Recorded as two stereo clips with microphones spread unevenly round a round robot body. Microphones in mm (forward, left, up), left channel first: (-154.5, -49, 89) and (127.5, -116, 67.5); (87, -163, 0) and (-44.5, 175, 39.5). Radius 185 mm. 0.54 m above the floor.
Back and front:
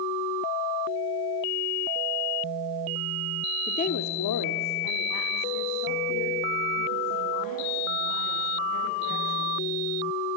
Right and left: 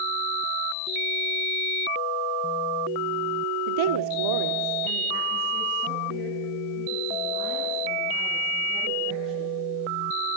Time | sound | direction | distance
3.7 | a woman speaking | 90° left | 1.1 m